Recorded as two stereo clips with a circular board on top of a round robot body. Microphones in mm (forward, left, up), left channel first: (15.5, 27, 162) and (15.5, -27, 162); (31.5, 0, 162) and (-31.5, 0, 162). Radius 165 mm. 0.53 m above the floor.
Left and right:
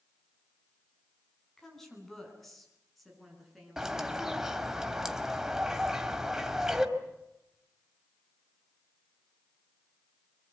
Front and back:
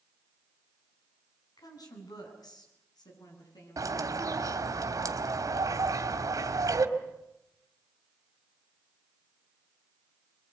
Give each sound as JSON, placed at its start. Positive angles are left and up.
{"t": 1.6, "sound": "a woman speaking", "azimuth_deg": 5, "distance_m": 7.5}
{"t": 3.8, "sound": "a bird", "azimuth_deg": -170, "distance_m": 2.5}